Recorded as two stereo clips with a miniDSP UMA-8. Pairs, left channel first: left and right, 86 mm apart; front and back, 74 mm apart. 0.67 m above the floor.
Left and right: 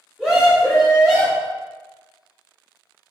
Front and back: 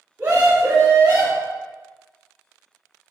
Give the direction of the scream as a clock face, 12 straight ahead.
7 o'clock.